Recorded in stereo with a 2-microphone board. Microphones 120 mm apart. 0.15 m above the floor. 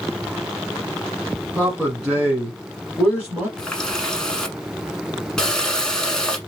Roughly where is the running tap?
Centre.